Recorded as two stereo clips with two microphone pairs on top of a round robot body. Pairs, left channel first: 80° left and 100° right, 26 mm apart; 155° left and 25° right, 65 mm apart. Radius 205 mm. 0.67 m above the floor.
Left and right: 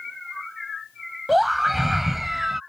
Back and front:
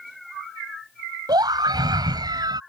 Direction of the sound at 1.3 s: 15° right.